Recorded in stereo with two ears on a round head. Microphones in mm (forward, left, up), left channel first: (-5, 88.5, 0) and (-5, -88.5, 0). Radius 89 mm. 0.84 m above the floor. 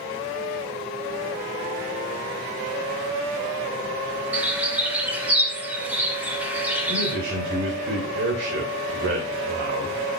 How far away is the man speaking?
About 4 m.